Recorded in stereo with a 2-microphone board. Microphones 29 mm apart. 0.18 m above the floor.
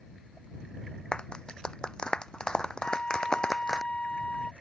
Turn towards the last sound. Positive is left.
turn(degrees=45)  # may be behind; listen again after turning